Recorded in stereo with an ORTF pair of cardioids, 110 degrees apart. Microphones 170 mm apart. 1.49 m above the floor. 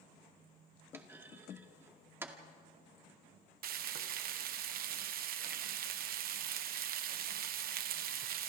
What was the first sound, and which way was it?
A clunk, 15° right.